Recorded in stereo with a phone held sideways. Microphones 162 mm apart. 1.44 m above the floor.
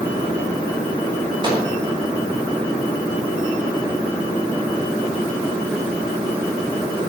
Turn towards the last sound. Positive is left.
turn(degrees=-30)  # may be behind; listen again after turning